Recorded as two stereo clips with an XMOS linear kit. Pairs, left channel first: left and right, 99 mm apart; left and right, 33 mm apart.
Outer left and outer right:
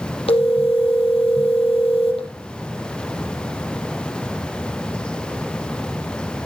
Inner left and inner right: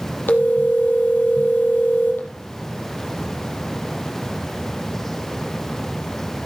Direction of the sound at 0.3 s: 75° left (ahead or behind).